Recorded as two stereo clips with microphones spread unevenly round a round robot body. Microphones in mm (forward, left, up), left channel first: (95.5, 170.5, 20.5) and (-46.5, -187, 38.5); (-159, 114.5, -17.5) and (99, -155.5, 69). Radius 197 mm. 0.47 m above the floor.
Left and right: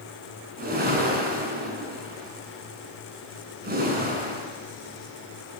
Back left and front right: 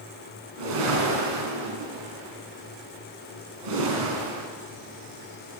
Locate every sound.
0.6 s a whoosh: 45° right, 5.5 m